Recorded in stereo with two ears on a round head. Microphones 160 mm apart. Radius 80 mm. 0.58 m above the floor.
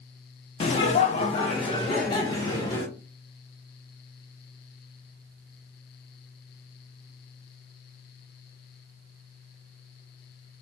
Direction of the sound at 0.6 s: 35° left (ahead or behind).